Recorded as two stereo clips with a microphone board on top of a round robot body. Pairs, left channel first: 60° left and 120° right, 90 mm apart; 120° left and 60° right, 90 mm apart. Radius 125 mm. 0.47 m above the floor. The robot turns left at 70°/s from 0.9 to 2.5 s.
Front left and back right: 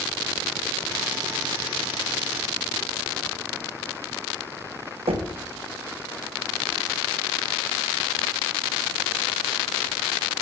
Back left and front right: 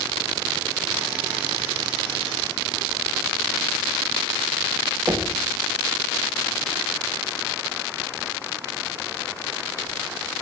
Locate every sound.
5.1 s knocking: 115° right, 1.5 m